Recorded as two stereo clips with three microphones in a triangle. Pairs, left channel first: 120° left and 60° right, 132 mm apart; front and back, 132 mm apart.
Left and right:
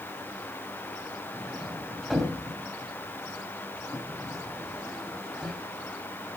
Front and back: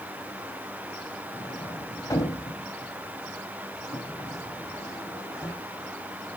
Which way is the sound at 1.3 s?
35° left.